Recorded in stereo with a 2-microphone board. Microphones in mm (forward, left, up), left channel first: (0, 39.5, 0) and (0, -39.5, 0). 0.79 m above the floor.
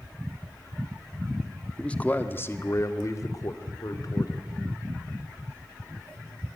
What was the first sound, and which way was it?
A man speaking, 10° left (ahead or behind).